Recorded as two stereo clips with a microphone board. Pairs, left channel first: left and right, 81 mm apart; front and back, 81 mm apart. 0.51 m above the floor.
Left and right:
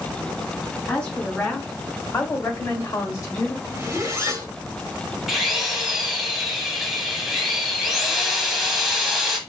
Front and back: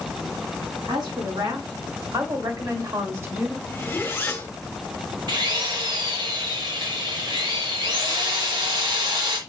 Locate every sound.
0.8 s a woman speaking: 165° left, 3.5 m; by 3.6 s 120° left, 1.4 m
3.7 s a zipper: 50° right, 1.3 m
5.3 s a drill: 175° right, 1.3 m